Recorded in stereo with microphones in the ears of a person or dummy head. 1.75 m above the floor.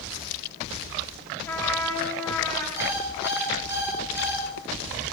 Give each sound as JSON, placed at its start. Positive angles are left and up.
{"t": 1.4, "sound": "a trumpet", "side_deg": 15, "distance_m": 6.0}
{"t": 2.8, "sound": "an alarm clock", "side_deg": -10, "distance_m": 8.5}